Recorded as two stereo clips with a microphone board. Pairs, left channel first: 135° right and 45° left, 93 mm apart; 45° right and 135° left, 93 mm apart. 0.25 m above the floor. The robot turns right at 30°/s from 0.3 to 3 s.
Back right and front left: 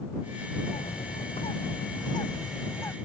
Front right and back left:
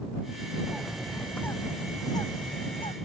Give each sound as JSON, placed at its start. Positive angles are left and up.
{"t": 0.7, "sound": "a bird", "azimuth_deg": -140}